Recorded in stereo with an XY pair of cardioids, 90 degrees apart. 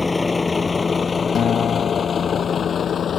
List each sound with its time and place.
0.0 s a vehicle: 20° left; by 3.2 s 60° left
1.4 s a guitar: 65° left